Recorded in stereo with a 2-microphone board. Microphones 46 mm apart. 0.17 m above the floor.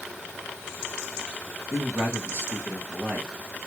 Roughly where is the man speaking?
Right.